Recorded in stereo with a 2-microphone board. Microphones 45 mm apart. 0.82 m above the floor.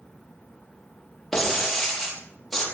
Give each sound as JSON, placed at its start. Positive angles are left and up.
{"t": 1.3, "sound": "breaking glass", "side_deg": 5, "distance_m": 5.5}